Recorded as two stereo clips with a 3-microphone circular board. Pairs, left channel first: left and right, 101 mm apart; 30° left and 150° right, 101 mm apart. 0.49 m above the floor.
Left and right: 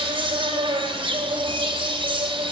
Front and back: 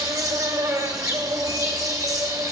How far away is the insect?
About 2 m.